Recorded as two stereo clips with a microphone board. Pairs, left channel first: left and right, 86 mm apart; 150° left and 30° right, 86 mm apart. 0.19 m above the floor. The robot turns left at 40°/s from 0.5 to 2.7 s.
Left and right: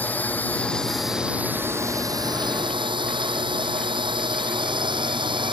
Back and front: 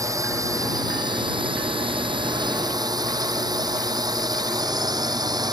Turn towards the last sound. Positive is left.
turn(degrees=-70)